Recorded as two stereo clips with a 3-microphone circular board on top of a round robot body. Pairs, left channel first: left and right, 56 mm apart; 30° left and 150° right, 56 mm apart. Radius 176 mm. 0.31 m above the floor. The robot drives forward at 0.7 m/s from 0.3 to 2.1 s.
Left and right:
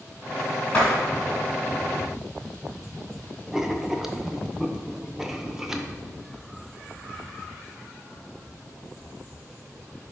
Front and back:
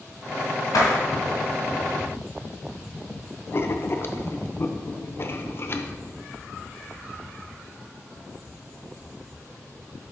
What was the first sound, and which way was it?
A door slam, 20° left.